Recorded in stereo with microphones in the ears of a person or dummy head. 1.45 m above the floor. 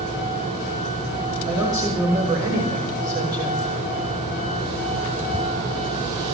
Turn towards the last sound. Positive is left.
turn(degrees=-20)  # may be behind; listen again after turning